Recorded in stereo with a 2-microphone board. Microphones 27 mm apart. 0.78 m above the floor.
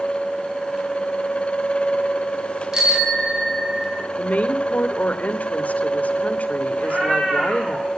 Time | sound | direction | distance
2.7 | a bicycle bell | 15° right (ahead or behind) | 5 m
4.2 | a woman speaking | 65° left (ahead or behind) | 2.5 m
6.8 | a cat meowing | 35° right (ahead or behind) | 9 m